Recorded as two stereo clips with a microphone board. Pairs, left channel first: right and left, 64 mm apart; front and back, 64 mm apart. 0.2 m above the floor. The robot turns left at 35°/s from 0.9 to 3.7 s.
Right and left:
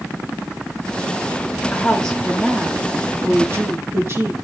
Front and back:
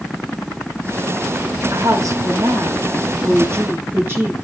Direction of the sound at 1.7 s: 160° right.